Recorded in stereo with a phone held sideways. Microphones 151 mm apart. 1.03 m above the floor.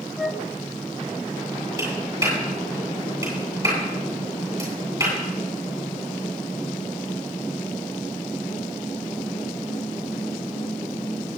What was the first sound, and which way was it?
A flute, centre (ahead or behind).